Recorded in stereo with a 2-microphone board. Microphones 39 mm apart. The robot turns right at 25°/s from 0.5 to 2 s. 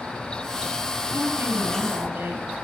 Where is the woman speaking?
80° right, 8 m; by 2.5 s 75° right (ahead or behind), 8 m.